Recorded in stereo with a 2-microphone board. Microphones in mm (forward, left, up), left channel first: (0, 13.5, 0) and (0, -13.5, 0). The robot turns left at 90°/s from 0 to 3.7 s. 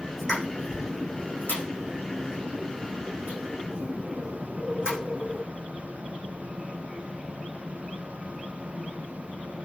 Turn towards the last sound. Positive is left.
turn(degrees=-40)  # may be behind; listen again after turning